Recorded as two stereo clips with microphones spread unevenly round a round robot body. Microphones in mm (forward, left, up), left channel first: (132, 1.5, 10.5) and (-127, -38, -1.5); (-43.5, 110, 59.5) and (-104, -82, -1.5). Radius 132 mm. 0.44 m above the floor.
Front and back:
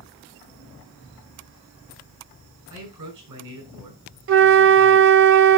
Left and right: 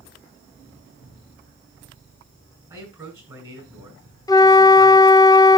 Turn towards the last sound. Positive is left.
turn(degrees=155)